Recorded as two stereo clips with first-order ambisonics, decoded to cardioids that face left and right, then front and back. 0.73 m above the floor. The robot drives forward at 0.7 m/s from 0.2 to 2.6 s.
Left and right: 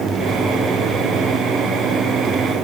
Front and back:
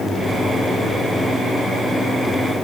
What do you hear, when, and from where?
Only background noise.